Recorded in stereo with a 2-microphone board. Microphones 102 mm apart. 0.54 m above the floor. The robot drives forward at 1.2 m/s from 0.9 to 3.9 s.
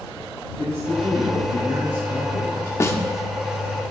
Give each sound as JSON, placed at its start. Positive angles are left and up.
{"t": 0.6, "sound": "a man speaking", "side_deg": -35, "distance_m": 6.5}
{"t": 2.8, "sound": "a snare drum", "side_deg": 25, "distance_m": 1.1}